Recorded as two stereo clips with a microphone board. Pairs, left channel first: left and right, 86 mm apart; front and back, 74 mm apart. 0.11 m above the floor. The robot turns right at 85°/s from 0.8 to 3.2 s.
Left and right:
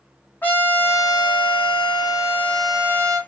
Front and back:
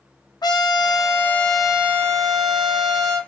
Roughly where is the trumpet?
Ahead.